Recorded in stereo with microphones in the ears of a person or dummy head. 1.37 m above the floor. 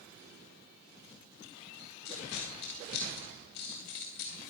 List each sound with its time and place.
2.0 s a dropped coin: 65° left (ahead or behind), 2.5 m